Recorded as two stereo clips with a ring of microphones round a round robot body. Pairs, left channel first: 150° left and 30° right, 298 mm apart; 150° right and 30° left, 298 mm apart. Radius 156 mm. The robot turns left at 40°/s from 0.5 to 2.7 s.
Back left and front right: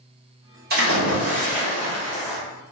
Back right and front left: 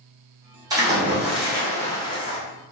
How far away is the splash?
About 1.0 m.